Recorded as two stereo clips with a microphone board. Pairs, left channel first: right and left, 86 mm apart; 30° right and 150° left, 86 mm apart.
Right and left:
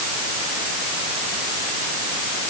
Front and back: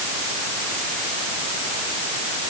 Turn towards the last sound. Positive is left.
No sound to turn to.